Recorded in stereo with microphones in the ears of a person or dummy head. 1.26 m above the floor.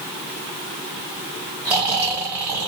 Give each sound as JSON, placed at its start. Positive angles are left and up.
{"t": 1.6, "sound": "snoring", "side_deg": -15, "distance_m": 1.6}